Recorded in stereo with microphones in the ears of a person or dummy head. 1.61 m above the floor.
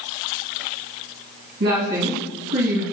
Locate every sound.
1.6 s a woman speaking: 50° right (ahead or behind), 2.0 m